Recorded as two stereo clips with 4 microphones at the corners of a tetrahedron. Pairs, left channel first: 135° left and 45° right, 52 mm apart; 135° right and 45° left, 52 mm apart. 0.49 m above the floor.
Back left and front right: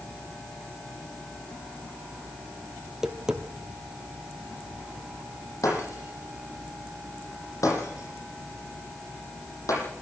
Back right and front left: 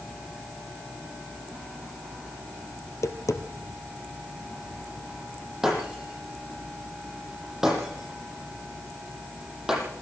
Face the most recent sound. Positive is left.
turn(degrees=125)